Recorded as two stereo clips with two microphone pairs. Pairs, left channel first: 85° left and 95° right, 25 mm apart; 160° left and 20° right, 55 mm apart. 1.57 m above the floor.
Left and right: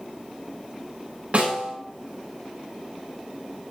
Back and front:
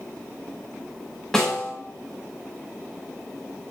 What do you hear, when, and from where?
1.3 s a snare drum: 120° right, 8.5 m